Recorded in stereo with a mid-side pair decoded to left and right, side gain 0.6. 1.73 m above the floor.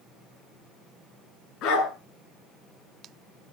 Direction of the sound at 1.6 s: 65° left.